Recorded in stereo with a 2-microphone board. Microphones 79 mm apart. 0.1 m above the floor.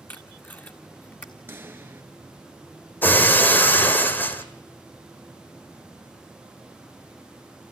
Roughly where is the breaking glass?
Left.